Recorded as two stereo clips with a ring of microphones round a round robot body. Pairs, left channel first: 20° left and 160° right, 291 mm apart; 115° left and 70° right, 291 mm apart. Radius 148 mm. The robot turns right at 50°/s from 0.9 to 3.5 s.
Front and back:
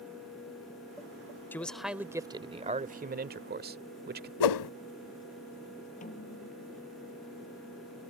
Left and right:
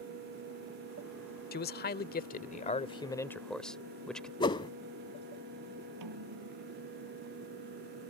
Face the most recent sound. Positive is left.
turn(degrees=-45)